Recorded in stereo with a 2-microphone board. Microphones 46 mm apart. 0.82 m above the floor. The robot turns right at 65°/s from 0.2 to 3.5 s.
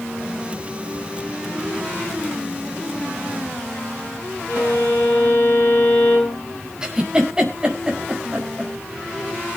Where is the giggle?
15° right (ahead or behind), 5 m.